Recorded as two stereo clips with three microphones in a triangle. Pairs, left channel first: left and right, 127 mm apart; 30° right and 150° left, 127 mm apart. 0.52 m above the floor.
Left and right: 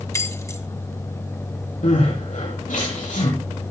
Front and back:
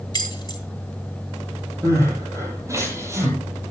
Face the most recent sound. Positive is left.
turn(degrees=85)